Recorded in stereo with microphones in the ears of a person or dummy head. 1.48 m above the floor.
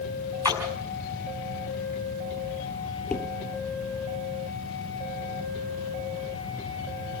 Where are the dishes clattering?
Centre (ahead or behind), 2.5 m.